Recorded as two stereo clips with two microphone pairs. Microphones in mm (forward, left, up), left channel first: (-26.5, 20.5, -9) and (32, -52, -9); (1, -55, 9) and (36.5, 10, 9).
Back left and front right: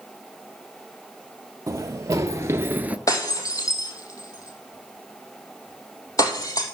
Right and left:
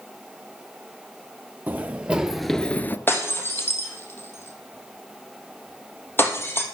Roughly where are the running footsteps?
Ahead.